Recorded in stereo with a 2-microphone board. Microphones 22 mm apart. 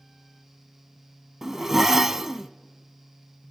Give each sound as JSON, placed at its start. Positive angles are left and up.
{"t": 1.4, "sound": "a zipper", "side_deg": -15, "distance_m": 0.7}